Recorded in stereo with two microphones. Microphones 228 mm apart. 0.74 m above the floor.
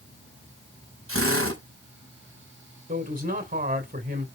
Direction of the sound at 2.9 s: 40° right (ahead or behind).